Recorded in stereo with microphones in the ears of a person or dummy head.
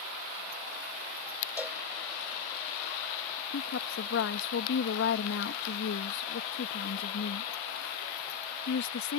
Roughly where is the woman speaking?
Left.